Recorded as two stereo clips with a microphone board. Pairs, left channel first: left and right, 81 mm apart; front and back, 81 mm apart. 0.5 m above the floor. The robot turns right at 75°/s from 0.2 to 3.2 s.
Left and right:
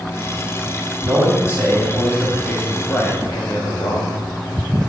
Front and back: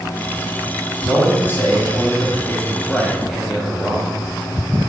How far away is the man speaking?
About 0.9 m.